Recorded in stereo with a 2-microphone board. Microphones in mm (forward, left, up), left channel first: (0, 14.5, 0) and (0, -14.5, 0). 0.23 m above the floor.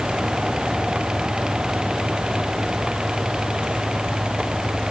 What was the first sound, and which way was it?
Only background noise.